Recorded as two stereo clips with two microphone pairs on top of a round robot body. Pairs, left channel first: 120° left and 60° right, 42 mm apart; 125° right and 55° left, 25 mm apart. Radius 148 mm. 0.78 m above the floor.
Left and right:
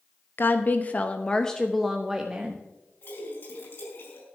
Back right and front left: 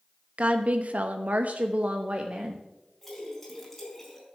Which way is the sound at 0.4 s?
95° left.